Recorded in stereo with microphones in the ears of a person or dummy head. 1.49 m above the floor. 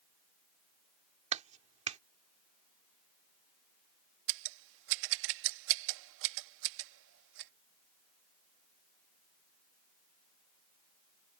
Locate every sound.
1.3 s a clap: 30° right (ahead or behind)
4.3 s scissors: 65° right (ahead or behind)